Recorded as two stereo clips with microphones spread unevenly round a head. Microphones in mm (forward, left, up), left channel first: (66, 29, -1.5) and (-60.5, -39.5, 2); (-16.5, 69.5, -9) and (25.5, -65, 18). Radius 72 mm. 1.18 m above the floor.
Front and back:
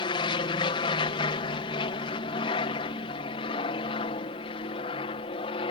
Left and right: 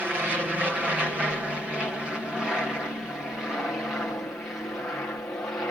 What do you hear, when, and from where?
0.0 s an aircraft: 10° left; by 5.7 s 40° left